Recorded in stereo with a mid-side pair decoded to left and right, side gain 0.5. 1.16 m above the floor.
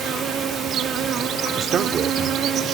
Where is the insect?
60° right.